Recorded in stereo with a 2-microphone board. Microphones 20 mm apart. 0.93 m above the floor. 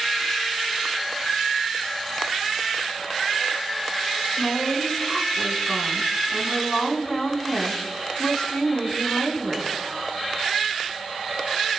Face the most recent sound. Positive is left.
turn(degrees=30)  # may be behind; listen again after turning